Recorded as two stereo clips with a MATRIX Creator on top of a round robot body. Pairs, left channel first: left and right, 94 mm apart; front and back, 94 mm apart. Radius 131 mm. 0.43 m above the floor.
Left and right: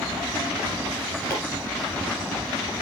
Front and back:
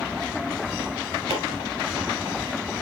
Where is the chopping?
160° left, 2.5 m.